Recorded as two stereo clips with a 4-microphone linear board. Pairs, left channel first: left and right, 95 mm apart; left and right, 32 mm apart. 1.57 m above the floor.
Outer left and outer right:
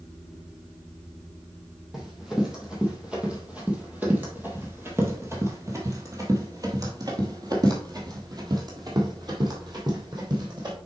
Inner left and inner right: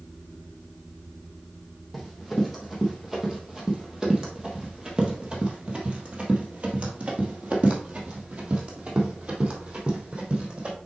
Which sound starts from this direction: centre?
Running footsteps, at 1.9 s.